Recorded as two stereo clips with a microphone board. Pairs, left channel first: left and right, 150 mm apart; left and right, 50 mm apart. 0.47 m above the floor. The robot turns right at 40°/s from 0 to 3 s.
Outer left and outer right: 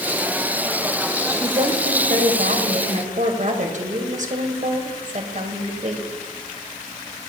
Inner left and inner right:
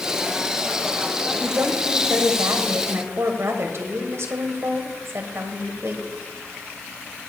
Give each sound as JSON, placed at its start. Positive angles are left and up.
{"t": 1.4, "sound": "a woman speaking", "azimuth_deg": -135, "distance_m": 1.8}